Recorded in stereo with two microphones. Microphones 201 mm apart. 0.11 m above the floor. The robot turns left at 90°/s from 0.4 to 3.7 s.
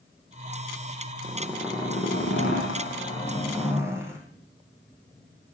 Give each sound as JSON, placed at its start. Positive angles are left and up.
{"t": 1.2, "sound": "a zipper", "azimuth_deg": -150, "distance_m": 5.0}